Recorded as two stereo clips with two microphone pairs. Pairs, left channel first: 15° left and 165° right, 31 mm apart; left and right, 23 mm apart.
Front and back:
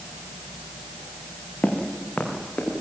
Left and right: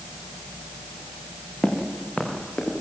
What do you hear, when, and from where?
1.6 s footsteps: 50° left, 5 m